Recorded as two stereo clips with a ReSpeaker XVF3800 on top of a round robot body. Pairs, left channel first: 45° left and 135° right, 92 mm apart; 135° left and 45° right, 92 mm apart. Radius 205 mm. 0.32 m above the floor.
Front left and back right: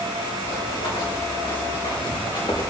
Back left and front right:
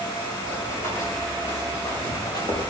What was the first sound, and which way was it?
Running footsteps, 70° left.